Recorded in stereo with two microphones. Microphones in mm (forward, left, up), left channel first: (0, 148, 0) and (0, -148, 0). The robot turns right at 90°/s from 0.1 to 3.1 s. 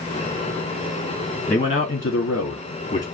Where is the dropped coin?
No dropped coin in this recording.